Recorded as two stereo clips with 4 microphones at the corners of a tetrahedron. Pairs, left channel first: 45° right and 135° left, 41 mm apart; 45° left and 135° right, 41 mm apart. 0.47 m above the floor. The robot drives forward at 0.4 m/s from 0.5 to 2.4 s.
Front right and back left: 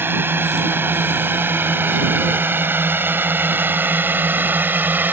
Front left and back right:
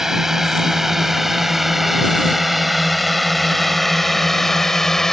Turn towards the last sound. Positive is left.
turn(degrees=120)